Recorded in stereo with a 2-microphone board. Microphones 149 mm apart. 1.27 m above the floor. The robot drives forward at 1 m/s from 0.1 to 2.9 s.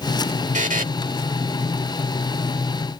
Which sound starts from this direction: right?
A buzzer, at 0.5 s.